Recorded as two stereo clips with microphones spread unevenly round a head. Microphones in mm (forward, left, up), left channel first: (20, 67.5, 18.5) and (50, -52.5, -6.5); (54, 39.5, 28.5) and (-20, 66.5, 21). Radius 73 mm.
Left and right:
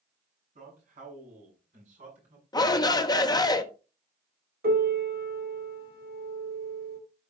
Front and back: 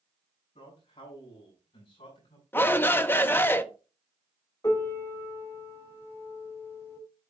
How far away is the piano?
About 3.5 m.